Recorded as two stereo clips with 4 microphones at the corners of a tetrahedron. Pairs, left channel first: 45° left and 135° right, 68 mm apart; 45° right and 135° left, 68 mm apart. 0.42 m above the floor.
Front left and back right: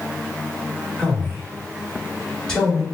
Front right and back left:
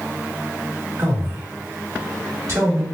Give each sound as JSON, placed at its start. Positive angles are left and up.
{"t": 1.0, "sound": "a man speaking", "azimuth_deg": 120, "distance_m": 2.0}